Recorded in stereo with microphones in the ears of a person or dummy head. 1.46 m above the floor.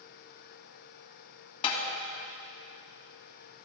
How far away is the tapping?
About 2.5 m.